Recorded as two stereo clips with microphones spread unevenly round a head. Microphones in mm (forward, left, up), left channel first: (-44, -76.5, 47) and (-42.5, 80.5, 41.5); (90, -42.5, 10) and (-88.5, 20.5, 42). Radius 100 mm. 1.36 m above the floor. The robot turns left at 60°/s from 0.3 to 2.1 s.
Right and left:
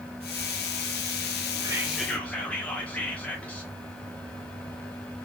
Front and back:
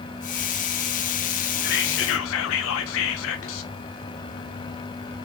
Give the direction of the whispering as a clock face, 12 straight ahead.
11 o'clock.